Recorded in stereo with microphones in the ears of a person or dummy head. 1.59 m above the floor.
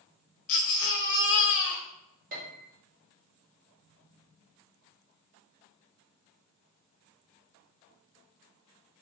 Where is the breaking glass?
I don't hear breaking glass.